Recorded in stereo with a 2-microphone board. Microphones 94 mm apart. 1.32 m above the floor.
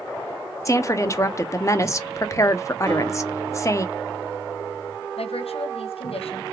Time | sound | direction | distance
0.7 | a woman speaking | 30° left (ahead or behind) | 0.6 m
2.9 | a guitar | 60° right (ahead or behind) | 2.5 m
5.2 | a woman speaking | 85° left | 0.8 m